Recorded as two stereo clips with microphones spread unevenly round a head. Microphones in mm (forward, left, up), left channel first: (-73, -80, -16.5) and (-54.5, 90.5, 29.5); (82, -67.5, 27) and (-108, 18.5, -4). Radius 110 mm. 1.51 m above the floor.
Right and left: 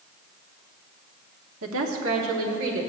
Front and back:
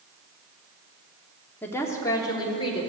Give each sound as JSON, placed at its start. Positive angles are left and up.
{"t": 1.6, "sound": "a woman speaking", "azimuth_deg": 60, "distance_m": 1.1}